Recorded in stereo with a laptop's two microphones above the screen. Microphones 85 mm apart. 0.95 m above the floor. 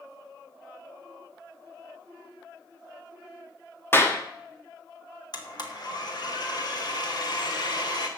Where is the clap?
30° left (ahead or behind), 1.1 m.